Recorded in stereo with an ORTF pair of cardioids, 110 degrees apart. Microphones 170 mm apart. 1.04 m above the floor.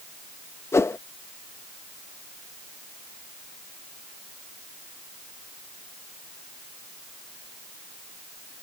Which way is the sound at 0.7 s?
15° left.